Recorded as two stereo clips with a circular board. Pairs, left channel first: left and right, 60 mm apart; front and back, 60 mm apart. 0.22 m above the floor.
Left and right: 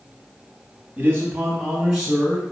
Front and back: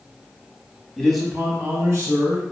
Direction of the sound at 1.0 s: 75° right.